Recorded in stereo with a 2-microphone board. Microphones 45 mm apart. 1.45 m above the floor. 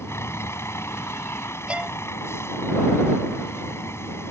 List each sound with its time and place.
0.0 s a vehicle: 75° left (ahead or behind)
1.7 s a violin: 25° right (ahead or behind)